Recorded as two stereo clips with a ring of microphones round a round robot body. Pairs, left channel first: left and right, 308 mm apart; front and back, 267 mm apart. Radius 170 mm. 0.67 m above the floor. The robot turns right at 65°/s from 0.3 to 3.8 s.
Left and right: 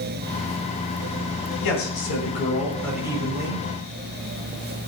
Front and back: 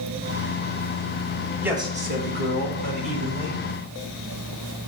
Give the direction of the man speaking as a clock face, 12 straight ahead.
9 o'clock.